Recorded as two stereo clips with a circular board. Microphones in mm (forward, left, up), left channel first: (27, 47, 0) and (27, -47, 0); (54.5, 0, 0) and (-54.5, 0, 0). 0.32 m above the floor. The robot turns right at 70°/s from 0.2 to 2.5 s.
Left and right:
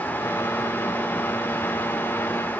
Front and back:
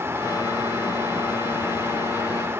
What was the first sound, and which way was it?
Only background noise.